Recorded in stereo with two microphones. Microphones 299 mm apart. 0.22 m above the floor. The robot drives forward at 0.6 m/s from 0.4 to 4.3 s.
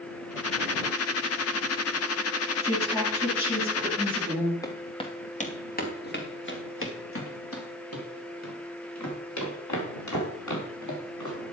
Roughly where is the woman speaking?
Centre.